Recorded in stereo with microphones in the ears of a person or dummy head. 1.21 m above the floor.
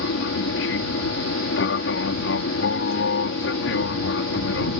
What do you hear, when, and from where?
0.0 s an aircraft: 60° left (ahead or behind)